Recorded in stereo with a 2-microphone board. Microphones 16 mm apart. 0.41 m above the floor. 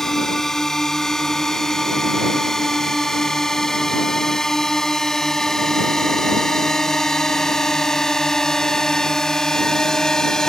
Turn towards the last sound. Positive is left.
turn(degrees=35)  # may be behind; listen again after turning